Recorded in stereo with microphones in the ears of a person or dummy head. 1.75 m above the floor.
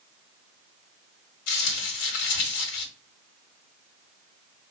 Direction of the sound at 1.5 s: 75° left (ahead or behind).